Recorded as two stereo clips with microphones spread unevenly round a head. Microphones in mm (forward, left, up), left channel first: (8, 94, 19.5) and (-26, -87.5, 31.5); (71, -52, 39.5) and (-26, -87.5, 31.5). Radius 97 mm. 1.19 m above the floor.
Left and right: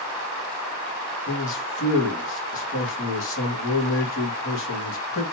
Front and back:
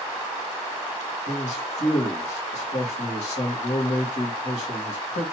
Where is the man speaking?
55° left, 2 m.